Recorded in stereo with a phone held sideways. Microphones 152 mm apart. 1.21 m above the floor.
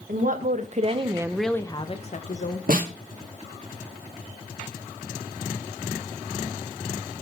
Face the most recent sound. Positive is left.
turn(degrees=-65)  # may be behind; listen again after turning